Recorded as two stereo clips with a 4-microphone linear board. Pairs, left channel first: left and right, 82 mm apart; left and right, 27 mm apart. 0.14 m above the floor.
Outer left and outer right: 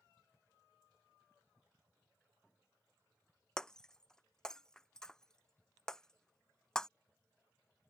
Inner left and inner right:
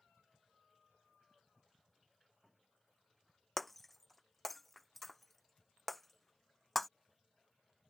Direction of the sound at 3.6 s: 10° left (ahead or behind).